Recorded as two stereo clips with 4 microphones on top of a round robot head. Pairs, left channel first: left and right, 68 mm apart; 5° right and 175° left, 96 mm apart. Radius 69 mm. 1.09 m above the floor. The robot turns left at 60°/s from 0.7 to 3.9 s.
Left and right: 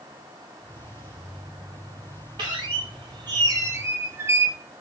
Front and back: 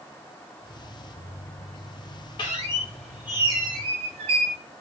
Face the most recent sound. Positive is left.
turn(degrees=-145)